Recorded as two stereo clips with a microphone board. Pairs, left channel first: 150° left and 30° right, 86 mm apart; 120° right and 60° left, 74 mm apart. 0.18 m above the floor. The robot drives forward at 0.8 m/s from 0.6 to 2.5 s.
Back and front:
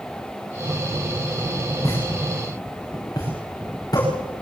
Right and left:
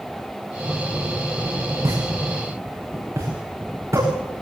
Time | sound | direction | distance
1.8 | a pop | 100° left | 9.5 m